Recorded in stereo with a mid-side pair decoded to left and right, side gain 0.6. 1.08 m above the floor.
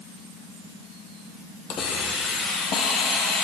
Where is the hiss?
65° left, 6.5 m.